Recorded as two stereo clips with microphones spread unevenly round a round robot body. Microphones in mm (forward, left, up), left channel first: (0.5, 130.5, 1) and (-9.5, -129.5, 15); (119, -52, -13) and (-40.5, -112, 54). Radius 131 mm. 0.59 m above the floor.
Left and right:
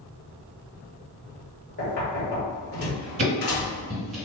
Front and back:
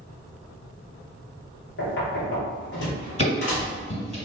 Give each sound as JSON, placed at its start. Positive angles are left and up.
{"t": 1.8, "sound": "knocking", "azimuth_deg": 35, "distance_m": 1.7}
{"t": 3.2, "sound": "ticking", "azimuth_deg": -40, "distance_m": 1.9}